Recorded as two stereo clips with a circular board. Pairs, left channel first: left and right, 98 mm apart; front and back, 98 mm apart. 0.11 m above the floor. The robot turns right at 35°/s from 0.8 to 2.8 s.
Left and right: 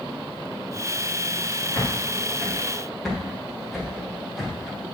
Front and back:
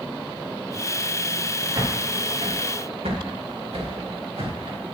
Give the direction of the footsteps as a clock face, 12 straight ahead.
7 o'clock.